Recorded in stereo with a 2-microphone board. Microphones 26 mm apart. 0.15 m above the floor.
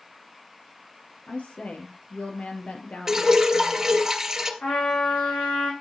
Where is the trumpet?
85° left, 5.5 m.